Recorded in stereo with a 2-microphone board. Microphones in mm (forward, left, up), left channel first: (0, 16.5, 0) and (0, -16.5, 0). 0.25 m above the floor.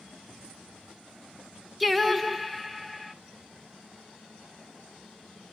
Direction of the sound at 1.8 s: Centre (ahead or behind).